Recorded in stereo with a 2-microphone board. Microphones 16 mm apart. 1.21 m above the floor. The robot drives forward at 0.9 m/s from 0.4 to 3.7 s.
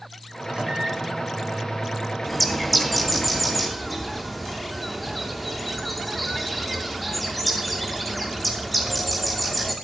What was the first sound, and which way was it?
A microwave, 70° right (ahead or behind).